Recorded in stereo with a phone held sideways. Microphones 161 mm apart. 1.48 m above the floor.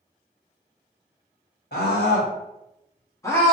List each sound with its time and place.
1.7 s a scream: 85° left, 1.3 m; by 3.5 s 5° left (ahead or behind), 0.8 m